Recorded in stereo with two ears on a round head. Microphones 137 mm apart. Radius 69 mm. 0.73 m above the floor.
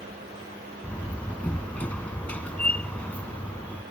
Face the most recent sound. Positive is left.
turn(degrees=10)  # may be behind; listen again after turning